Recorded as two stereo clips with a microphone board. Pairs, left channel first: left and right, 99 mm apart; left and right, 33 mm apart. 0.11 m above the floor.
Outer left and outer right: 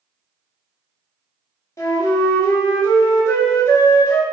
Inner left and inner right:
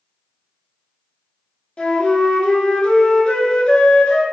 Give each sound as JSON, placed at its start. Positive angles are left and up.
{"t": 1.8, "sound": "a flute", "side_deg": 35, "distance_m": 0.5}